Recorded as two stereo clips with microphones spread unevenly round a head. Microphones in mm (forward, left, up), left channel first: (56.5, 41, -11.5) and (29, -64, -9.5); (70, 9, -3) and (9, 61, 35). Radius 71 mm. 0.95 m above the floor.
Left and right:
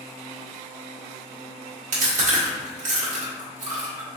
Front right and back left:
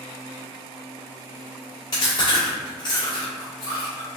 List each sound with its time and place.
1.9 s chewing: 100° right, 1.3 m